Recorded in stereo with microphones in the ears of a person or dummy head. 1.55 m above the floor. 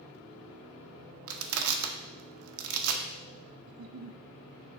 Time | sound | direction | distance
1.3 | crushing | 80° right | 0.9 m
3.7 | a giggle | 70° right (ahead or behind) | 0.6 m